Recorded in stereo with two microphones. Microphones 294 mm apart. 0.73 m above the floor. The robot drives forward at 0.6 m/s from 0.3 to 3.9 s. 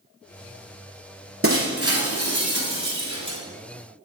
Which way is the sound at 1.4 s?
45° right (ahead or behind).